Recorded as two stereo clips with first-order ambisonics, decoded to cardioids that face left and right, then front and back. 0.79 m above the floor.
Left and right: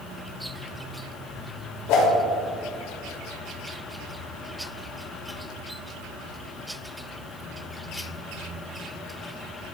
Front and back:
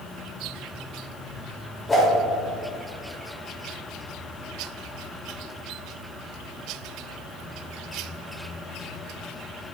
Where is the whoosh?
75° left, 2.5 m.